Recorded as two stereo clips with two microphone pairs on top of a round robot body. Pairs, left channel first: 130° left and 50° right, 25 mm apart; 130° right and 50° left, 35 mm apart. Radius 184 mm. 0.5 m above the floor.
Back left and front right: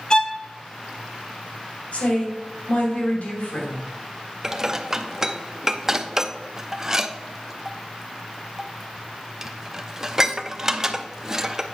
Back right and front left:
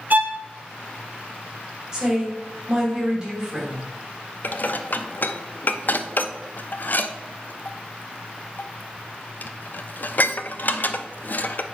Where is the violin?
80° left, 0.8 m.